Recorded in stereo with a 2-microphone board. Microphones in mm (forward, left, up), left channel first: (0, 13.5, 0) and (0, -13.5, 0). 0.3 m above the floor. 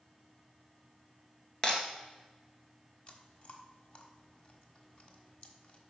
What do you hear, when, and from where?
1.6 s breaking glass: 30° left (ahead or behind), 1.9 m
3.1 s chewing: 45° left (ahead or behind), 1.3 m